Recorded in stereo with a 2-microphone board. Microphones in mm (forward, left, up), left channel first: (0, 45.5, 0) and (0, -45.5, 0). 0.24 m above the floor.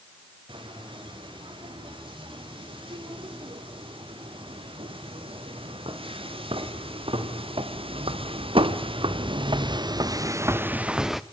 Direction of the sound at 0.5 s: 70° right (ahead or behind).